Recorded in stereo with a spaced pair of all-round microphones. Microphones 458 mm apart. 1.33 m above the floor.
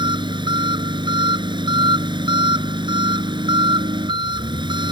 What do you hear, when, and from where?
0.0 s an engine running: 10° right (ahead or behind)